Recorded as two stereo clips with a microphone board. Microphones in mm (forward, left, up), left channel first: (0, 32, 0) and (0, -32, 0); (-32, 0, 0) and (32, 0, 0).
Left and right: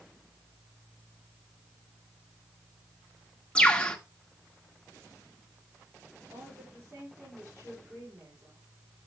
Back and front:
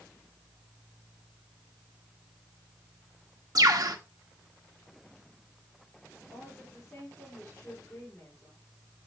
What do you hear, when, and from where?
3.5 s a bird: 15° left, 1.4 m
6.3 s a woman speaking: 110° right, 5 m